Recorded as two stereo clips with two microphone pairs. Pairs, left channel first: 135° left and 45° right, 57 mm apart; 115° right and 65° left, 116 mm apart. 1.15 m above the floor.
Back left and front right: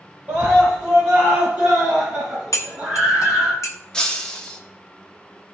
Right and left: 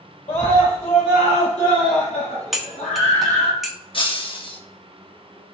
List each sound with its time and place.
0.3 s a scream: 105° right, 4.5 m; by 3.5 s 115° right, 7.5 m
2.5 s cutlery clinking: 155° left, 0.9 m
3.9 s breaking glass: 150° right, 1.1 m